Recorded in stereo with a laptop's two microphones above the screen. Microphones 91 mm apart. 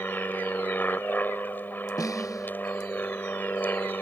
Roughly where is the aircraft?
Centre.